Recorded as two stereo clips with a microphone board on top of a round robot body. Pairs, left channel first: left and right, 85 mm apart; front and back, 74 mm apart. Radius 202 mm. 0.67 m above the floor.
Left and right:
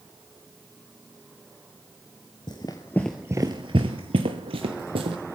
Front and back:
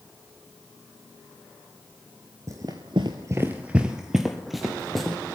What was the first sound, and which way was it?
Running footsteps, 125° left.